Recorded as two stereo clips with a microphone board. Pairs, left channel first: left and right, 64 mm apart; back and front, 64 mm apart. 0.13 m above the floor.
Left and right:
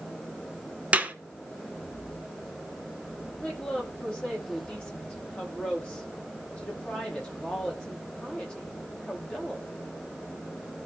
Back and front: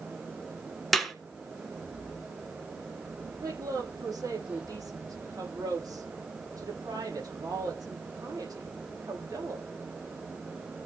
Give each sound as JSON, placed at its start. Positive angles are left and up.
{"t": 0.9, "sound": "a clap", "azimuth_deg": -95, "distance_m": 1.5}
{"t": 3.4, "sound": "a woman speaking", "azimuth_deg": 15, "distance_m": 7.0}